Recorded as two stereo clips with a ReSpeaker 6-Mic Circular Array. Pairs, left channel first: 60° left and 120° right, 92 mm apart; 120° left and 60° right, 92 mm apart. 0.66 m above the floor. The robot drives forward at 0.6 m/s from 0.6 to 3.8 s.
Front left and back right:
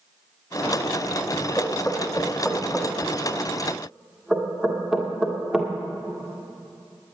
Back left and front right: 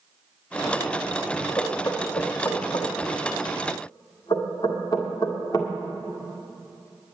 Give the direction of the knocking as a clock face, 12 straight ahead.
9 o'clock.